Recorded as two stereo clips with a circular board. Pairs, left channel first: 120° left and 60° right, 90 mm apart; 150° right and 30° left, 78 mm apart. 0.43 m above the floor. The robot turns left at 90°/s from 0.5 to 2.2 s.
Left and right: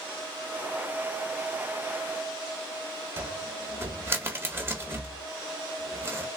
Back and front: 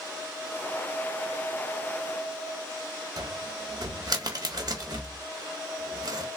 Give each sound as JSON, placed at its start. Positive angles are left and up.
{"t": 3.2, "sound": "a cupboard door", "azimuth_deg": 0, "distance_m": 1.0}